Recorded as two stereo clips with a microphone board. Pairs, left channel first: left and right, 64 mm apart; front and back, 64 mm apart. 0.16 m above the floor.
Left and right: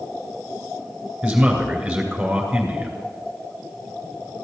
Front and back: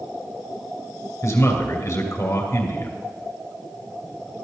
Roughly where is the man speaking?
Ahead.